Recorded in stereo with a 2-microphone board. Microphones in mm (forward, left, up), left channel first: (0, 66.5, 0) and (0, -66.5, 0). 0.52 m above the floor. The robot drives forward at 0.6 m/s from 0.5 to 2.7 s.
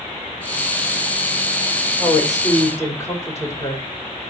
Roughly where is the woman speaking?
Left.